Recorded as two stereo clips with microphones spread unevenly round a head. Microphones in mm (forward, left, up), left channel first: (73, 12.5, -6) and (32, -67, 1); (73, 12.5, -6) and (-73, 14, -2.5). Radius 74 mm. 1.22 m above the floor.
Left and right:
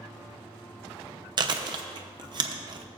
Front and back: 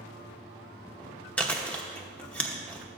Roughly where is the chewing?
Right.